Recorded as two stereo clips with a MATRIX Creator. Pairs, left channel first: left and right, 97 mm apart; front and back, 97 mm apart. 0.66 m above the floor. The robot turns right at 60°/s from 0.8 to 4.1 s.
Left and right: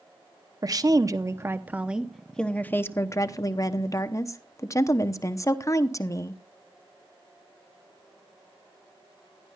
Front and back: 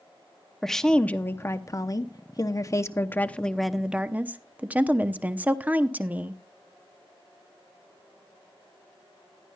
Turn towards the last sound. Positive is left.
turn(degrees=115)